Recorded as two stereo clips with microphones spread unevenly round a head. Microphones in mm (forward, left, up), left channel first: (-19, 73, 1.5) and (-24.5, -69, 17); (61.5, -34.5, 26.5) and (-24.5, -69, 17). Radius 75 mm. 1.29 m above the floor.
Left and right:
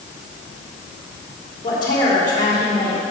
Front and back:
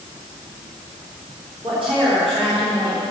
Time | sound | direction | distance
1.6 | a woman speaking | 150° left | 3.5 m